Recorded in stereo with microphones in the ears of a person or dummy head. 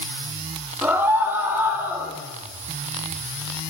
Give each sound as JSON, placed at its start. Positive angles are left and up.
{"t": 0.8, "sound": "a scream", "side_deg": -10, "distance_m": 2.5}